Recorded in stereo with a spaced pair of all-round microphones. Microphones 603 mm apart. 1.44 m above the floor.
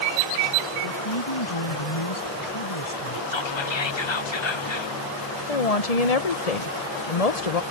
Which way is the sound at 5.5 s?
80° left.